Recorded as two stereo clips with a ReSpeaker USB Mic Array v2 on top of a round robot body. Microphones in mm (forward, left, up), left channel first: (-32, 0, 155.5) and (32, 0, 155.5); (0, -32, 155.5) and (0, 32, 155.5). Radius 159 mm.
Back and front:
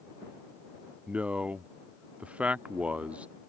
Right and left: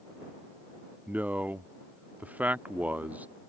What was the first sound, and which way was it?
A man speaking, 50° left.